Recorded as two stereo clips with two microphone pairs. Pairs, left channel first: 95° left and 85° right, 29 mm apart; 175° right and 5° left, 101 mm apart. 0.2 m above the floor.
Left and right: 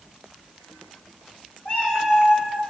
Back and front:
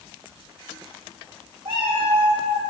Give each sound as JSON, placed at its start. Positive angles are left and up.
{"t": 1.6, "sound": "a cat meowing", "azimuth_deg": 50, "distance_m": 2.0}